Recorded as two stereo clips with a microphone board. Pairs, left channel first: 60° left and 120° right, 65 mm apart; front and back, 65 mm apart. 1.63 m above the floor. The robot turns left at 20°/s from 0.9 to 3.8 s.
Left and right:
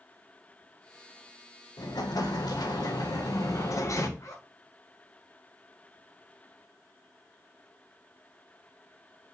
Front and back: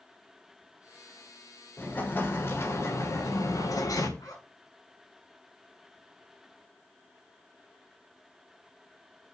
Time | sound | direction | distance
1.8 | an explosion | 65° left | 2 m
4.2 | a zipper | 25° left | 6 m